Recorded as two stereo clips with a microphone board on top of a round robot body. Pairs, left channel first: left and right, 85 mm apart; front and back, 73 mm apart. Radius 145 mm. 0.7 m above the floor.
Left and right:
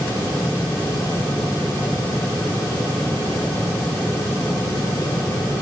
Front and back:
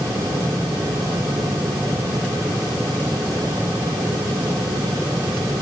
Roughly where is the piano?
I don't hear a piano.